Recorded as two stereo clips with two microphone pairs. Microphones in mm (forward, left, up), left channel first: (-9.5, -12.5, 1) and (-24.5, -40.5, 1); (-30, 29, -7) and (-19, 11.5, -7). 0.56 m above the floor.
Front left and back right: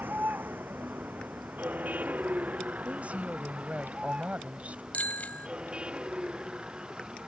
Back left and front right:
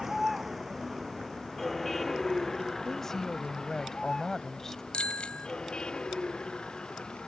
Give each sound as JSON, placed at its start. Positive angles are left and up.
{"t": 0.0, "sound": "a vehicle", "azimuth_deg": -130}
{"t": 2.9, "sound": "a woman speaking", "azimuth_deg": -165}
{"t": 4.9, "sound": "a bicycle bell", "azimuth_deg": 90}